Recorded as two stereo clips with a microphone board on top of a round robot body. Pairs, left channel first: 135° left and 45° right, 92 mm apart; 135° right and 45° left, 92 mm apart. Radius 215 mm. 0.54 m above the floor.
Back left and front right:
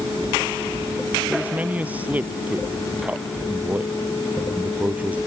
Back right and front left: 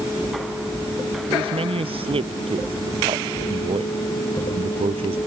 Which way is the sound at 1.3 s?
30° left.